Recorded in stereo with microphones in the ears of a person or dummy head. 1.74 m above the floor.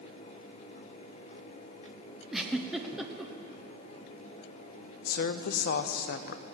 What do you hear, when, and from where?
2.3 s a giggle: 10° right (ahead or behind), 1.0 m
5.0 s a woman speaking: 55° left (ahead or behind), 0.6 m